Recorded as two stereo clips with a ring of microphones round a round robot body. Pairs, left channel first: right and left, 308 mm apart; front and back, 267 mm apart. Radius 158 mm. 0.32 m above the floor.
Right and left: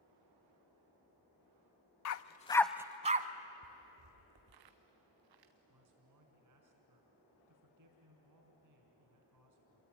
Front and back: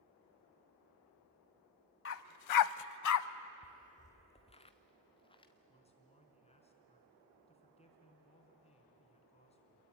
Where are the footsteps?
50° left, 0.6 m; by 5.5 s 70° left, 2.5 m.